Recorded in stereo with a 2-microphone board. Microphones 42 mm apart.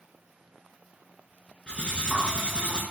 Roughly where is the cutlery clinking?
Left.